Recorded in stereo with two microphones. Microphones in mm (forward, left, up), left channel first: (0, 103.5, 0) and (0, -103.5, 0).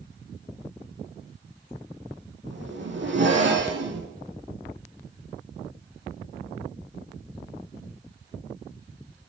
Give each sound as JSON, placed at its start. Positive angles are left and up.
{"t": 2.5, "sound": "a zipper", "side_deg": -70, "distance_m": 4.0}